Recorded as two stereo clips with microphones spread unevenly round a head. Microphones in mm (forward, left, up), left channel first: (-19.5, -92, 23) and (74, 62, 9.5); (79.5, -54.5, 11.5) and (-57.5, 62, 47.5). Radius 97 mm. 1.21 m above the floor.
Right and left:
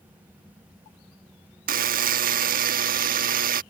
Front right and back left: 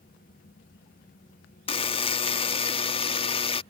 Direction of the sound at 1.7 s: 25° left.